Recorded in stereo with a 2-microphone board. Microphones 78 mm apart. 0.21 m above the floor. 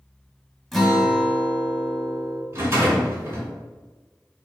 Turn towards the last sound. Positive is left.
turn(degrees=-40)  # may be behind; listen again after turning